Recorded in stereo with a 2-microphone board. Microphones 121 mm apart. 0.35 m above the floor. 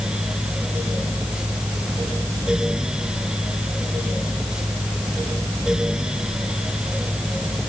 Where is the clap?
No clap in this recording.